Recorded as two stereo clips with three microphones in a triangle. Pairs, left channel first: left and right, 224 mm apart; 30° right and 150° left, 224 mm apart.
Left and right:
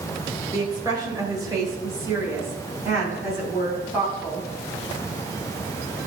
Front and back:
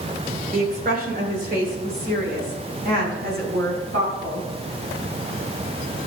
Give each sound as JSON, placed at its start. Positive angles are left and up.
{"t": 0.5, "sound": "a woman speaking", "azimuth_deg": -160, "distance_m": 2.0}